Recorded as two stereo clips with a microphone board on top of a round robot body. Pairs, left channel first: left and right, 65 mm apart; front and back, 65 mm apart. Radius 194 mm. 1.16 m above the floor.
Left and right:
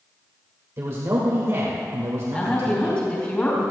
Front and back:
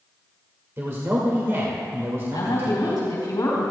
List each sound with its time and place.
0.8 s a man speaking: 130° right, 2 m
2.3 s a woman speaking: 25° left, 4 m